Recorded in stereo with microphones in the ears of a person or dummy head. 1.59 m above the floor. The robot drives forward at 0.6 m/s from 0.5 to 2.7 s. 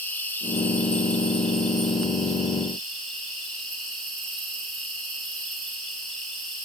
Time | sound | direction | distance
0.0 | an insect | 10° left (ahead or behind) | 0.8 m